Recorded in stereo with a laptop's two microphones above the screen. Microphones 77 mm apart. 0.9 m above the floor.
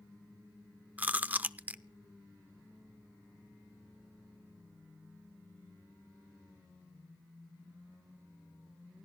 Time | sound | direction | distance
1.0 | chewing | 20° right (ahead or behind) | 0.6 m